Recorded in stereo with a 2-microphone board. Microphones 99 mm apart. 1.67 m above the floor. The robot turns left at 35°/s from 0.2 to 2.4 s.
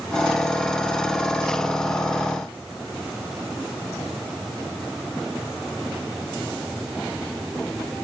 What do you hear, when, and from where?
Only background noise.